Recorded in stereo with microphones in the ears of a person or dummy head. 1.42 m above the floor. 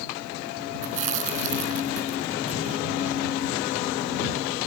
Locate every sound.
0.8 s chewing: 40° right (ahead or behind)